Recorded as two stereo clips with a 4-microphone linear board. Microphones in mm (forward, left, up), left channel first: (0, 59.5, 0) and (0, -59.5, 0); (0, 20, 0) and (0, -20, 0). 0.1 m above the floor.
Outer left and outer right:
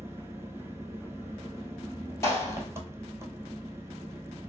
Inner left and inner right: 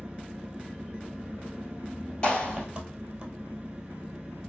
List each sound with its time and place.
0.0 s an engine running: 25° right (ahead or behind), 1.0 m
2.2 s a clap: 20° left (ahead or behind), 2.5 m